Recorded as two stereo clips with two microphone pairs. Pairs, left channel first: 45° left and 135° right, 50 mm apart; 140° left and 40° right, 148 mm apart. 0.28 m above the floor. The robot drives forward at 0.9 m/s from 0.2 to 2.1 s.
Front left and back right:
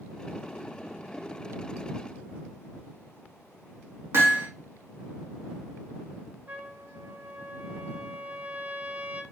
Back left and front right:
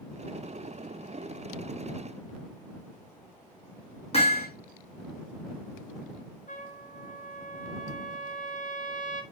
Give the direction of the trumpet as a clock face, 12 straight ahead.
6 o'clock.